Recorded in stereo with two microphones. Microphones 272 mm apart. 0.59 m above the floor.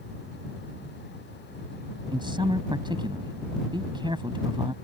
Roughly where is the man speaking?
Centre.